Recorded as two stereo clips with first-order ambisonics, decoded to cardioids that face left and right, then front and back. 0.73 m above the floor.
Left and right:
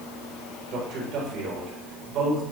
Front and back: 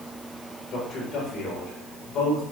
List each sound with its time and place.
0.7 s a man speaking: 50° right, 4 m